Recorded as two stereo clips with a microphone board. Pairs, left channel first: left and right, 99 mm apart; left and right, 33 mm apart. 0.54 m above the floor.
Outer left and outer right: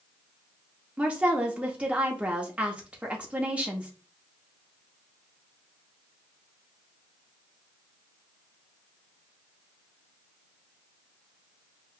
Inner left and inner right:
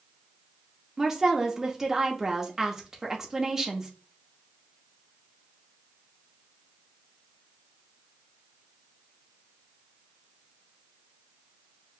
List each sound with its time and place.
1.0 s a woman speaking: 10° right (ahead or behind), 0.9 m